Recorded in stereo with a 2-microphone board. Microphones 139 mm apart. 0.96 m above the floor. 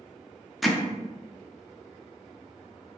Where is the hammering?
Centre (ahead or behind), 0.5 m.